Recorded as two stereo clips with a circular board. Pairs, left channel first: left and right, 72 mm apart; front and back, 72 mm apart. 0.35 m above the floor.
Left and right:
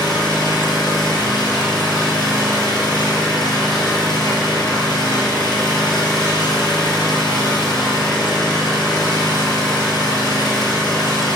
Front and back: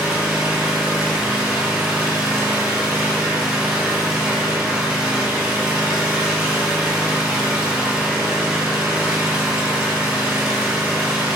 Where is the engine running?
105° left, 2.5 m.